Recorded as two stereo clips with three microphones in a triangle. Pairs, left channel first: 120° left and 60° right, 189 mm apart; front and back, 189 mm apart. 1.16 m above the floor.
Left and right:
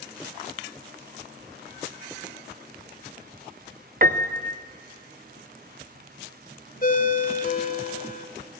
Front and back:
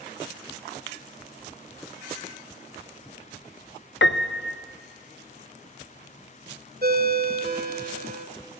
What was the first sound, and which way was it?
A piano, 15° right.